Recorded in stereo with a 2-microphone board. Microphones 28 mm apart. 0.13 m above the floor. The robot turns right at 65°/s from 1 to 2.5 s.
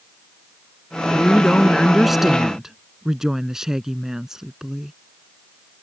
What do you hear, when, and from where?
1.1 s a woman speaking: 125° left; by 4.9 s 145° right